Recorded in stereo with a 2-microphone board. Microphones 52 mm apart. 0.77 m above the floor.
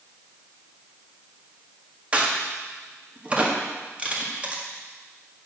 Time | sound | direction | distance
2.1 | a crack | 25° right (ahead or behind) | 1.6 m